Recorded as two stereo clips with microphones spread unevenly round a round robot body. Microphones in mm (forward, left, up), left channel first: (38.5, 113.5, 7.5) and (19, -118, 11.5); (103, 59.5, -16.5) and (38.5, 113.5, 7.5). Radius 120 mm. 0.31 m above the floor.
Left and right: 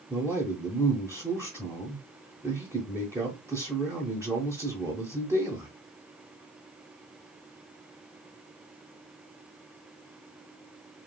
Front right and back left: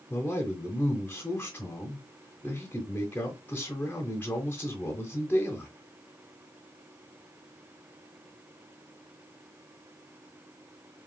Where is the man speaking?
25° right, 1.1 m.